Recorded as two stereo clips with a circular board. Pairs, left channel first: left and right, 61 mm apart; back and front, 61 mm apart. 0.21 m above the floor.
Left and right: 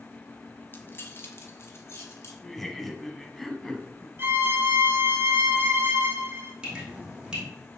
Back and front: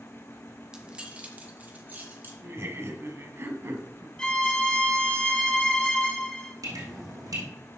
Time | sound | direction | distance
0.7 | keys jangling | 70° left | 1.2 m
2.4 | laughter | 10° left | 1.3 m
4.2 | a violin | 110° right | 1.0 m
6.6 | dripping | 15° right | 4 m